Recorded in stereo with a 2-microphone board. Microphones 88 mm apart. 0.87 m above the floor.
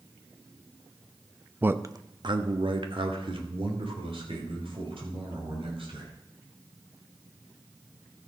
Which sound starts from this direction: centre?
A man speaking, at 1.6 s.